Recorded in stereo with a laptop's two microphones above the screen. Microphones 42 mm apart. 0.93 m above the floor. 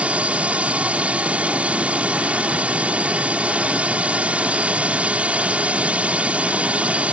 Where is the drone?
30° right (ahead or behind).